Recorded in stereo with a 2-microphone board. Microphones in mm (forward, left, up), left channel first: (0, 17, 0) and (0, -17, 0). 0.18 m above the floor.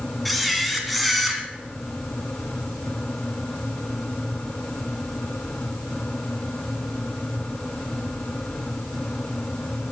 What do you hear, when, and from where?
0.2 s a camera shutter: centre (ahead or behind), 1.6 m